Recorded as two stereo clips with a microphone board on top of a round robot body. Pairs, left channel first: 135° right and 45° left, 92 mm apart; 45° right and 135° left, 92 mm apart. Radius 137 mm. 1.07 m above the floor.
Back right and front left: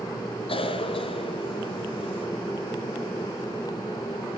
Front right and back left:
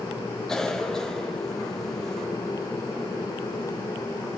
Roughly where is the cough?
Behind right.